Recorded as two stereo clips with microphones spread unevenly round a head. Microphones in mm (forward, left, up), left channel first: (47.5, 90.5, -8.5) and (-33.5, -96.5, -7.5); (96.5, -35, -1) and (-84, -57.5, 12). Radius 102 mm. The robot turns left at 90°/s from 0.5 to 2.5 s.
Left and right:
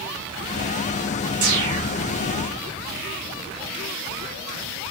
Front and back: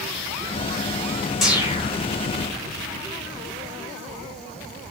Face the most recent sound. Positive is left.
turn(degrees=175)